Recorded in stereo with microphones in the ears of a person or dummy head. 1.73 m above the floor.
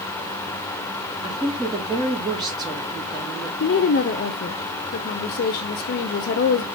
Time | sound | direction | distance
1.2 | a woman speaking | 15° right (ahead or behind) | 3 m
3.6 | a woman speaking | 40° left (ahead or behind) | 0.6 m